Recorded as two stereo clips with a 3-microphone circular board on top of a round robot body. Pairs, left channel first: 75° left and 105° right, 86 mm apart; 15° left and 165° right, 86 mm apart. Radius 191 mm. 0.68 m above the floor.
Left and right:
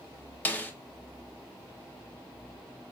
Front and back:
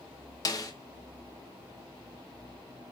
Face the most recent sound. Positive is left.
turn(degrees=15)